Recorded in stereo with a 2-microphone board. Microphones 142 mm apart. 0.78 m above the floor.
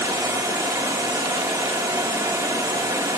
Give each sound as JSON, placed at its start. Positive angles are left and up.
{"t": 0.0, "sound": "running water", "side_deg": -25, "distance_m": 1.6}